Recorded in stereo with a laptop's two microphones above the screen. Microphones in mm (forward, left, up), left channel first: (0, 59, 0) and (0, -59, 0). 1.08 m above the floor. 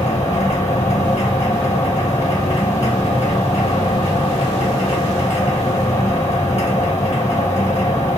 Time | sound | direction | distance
0.0 | a machine running | 65° left (ahead or behind) | 1.4 m